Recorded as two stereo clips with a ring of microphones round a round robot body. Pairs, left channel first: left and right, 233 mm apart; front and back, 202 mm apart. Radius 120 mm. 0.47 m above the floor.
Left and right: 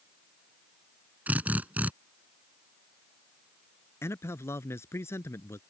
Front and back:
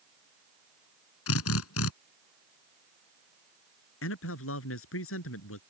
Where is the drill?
5° right.